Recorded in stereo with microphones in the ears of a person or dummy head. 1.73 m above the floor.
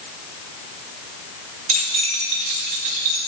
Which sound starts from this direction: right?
Keys jangling, at 1.7 s.